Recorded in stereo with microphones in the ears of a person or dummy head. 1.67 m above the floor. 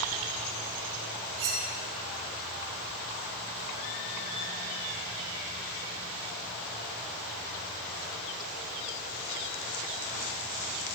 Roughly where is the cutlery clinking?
Right.